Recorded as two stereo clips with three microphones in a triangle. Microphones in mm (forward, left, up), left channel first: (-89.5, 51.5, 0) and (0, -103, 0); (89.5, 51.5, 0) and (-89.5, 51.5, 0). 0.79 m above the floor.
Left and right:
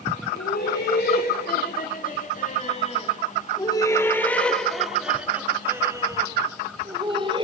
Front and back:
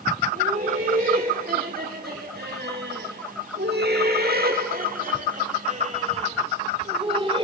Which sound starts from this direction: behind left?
Laughter, at 0.3 s.